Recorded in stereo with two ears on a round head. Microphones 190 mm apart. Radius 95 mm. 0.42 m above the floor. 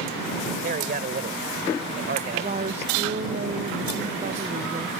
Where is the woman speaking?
35° right (ahead or behind).